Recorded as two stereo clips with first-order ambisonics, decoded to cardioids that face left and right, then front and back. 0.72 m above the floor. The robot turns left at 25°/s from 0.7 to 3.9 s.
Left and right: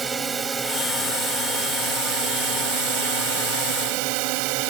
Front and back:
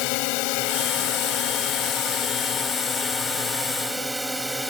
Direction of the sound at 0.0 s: 15° right.